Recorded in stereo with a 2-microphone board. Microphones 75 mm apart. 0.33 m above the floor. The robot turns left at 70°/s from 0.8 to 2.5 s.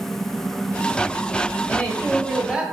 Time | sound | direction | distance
1.7 | a woman speaking | 30° left | 1.2 m